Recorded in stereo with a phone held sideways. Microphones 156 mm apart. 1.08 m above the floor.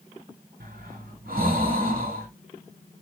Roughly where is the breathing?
Right.